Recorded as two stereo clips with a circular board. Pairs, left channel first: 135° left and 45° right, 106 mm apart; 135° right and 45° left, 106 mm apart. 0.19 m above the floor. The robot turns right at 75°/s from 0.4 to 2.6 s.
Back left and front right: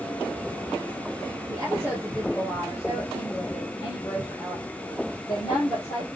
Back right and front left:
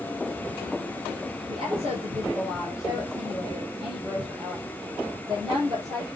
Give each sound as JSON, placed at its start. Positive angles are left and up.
{"t": 1.5, "sound": "a woman speaking", "azimuth_deg": 0, "distance_m": 5.0}